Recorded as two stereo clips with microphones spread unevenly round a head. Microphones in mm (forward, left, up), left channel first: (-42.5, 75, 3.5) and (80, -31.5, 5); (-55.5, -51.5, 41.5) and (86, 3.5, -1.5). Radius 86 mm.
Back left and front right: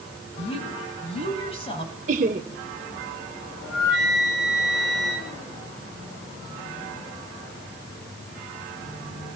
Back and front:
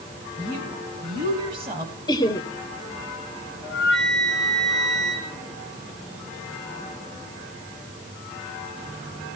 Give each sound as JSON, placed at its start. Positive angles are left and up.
{"t": 0.4, "sound": "a woman speaking", "azimuth_deg": 85, "distance_m": 8.0}
{"t": 2.1, "sound": "laughter", "azimuth_deg": -90, "distance_m": 1.7}
{"t": 3.6, "sound": "a flute", "azimuth_deg": 115, "distance_m": 7.5}